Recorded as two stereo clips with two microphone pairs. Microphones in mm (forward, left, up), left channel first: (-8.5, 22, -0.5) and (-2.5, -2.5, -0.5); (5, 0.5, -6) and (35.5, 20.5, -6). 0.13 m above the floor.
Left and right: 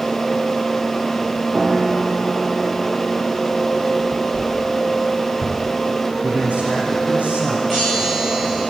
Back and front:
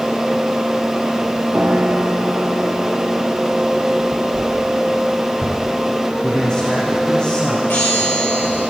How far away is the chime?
About 7.5 m.